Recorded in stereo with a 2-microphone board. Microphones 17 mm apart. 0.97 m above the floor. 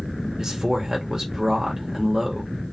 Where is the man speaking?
35° right (ahead or behind), 1.0 m.